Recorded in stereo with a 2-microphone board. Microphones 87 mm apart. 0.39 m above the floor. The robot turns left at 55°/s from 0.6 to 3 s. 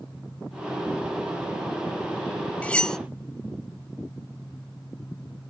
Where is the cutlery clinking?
15° left (ahead or behind), 0.6 m; by 3.0 s 5° left (ahead or behind), 0.6 m.